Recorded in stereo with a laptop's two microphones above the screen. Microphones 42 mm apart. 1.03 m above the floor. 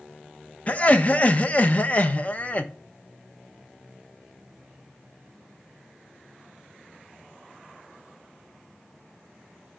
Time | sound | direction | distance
0.7 | laughter | 35° left (ahead or behind) | 0.6 m